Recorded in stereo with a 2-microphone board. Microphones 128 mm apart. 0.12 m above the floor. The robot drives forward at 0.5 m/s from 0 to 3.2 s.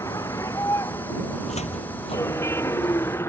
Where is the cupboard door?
65° left (ahead or behind); by 3.1 s 40° left (ahead or behind).